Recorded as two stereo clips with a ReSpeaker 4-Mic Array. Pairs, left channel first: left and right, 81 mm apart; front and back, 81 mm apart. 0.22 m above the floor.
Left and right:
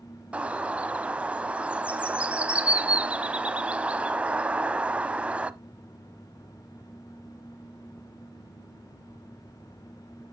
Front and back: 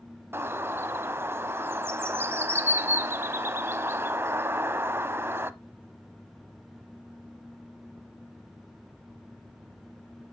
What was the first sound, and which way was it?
A bird, 150° right.